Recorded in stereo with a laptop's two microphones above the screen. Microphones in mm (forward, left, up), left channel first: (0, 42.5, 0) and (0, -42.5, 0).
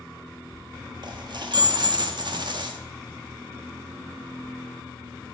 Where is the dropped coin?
60° right (ahead or behind), 0.8 m.